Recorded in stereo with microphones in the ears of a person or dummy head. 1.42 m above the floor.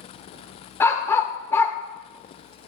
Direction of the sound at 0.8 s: 15° left (ahead or behind).